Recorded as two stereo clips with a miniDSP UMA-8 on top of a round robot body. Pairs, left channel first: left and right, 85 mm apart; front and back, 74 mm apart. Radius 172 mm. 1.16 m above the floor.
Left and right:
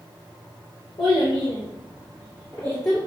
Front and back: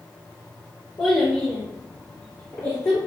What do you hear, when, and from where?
1.0 s a child speaking: 55° left, 0.6 m; by 3.0 s 30° left, 1.7 m